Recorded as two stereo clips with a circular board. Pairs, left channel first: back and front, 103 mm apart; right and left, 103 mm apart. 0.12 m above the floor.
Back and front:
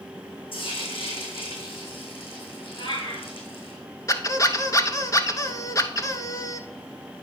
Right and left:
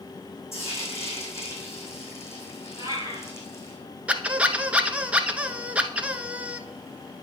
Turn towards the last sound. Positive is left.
turn(degrees=160)